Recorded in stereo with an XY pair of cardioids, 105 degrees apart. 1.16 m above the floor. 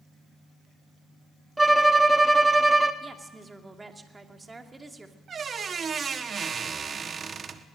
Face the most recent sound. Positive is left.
turn(degrees=-40)